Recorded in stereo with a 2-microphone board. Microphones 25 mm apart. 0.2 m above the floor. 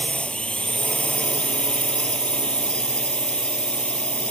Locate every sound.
0.0 s a drone: 50° left (ahead or behind)